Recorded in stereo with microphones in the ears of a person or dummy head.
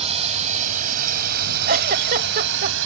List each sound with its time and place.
0.0 s a drone: 25° right (ahead or behind); by 2.9 s 70° right (ahead or behind)
1.7 s a giggle: 45° right (ahead or behind)